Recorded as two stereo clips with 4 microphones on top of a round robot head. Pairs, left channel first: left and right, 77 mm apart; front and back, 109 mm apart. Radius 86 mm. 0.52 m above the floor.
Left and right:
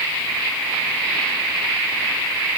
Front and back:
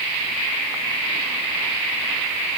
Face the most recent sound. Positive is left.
No sound to turn to.